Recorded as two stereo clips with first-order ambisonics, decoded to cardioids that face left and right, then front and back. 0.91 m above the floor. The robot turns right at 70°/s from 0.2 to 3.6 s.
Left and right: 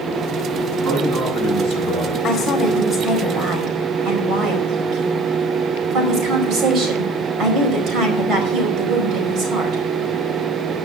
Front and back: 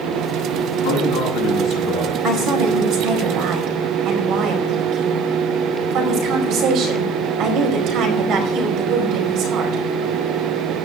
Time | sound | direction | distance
0.8 | a man speaking | straight ahead | 7.5 m
2.2 | a woman speaking | 125° left | 4.5 m